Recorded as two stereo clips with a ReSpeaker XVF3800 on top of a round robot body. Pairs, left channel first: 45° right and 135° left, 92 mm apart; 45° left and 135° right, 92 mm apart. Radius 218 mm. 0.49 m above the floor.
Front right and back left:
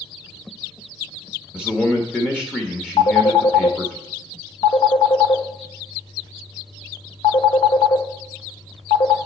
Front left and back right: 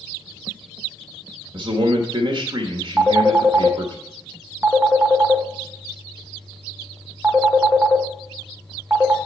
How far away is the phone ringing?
About 1.2 m.